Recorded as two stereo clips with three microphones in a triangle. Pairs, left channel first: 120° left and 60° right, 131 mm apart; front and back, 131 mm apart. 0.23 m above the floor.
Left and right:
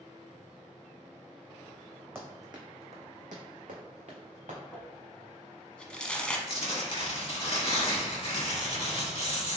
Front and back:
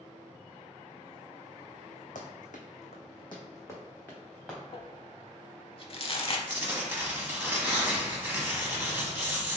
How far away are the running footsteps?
About 1.0 m.